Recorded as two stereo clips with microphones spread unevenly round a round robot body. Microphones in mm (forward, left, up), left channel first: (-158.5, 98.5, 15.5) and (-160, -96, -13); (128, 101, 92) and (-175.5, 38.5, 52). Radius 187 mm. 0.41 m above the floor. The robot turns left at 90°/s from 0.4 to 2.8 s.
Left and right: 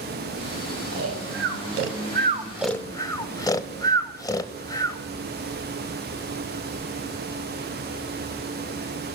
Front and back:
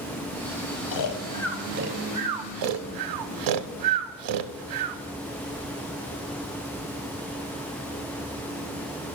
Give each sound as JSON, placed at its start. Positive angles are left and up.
{"t": 0.9, "sound": "snoring", "azimuth_deg": -25, "distance_m": 0.5}